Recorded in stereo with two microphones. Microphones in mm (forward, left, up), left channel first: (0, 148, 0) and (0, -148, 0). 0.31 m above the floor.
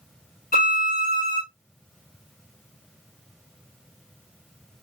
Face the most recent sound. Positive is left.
turn(degrees=30)  # may be behind; listen again after turning